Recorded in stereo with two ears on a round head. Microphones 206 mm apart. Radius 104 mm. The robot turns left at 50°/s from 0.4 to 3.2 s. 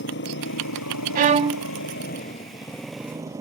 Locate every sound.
0.0 s a motorcycle: 125° left; by 3.4 s 15° right
1.1 s a violin: 40° right (ahead or behind); by 1.7 s 15° right (ahead or behind)